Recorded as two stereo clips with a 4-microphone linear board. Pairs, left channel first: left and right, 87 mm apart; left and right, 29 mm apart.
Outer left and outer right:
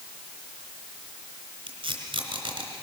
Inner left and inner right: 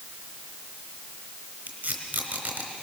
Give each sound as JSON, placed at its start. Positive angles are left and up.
{"t": 1.7, "sound": "tape being pulled", "side_deg": -75, "distance_m": 3.5}